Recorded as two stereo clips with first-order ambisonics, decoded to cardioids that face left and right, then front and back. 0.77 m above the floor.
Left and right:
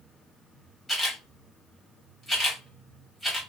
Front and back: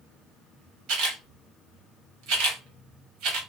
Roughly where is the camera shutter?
Behind.